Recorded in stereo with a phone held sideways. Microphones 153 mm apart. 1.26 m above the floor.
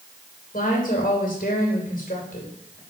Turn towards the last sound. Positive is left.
turn(degrees=60)  # may be behind; listen again after turning